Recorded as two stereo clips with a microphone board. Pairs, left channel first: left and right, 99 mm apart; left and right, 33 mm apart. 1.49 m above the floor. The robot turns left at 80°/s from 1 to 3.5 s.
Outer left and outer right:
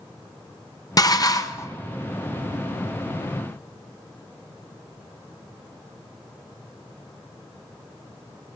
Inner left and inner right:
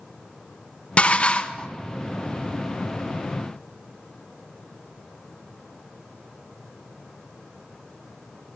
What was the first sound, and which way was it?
Dishes clattering, 100° left.